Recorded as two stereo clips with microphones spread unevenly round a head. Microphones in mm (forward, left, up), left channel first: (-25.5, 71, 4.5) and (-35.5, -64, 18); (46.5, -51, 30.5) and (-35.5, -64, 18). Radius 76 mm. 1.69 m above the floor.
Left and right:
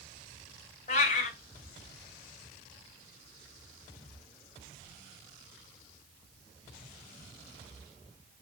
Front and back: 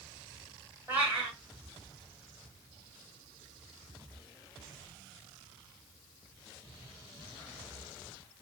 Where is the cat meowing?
105° left, 2 m.